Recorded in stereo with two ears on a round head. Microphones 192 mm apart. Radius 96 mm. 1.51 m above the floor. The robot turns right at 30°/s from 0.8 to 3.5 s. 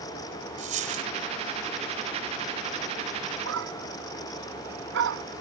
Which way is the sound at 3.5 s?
65° right (ahead or behind).